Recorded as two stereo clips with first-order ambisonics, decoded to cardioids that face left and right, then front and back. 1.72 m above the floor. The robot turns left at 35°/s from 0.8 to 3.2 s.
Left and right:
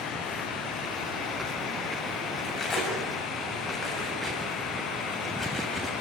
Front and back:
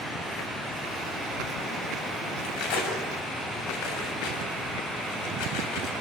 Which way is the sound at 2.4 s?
30° left.